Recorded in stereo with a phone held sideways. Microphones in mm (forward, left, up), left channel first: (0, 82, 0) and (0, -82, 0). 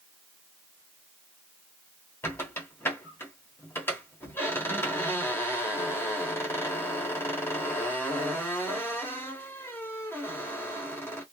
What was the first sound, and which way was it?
A squeak, 15° left (ahead or behind).